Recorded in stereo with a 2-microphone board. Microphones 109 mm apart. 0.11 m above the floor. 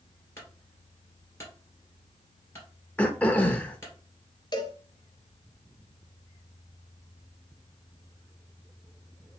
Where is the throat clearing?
15° left (ahead or behind), 0.6 m.